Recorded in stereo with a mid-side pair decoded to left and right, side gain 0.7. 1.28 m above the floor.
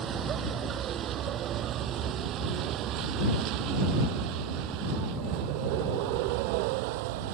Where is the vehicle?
40° right; by 7.3 s 75° right.